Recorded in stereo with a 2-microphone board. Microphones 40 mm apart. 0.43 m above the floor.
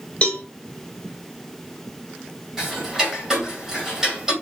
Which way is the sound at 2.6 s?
15° right (ahead or behind).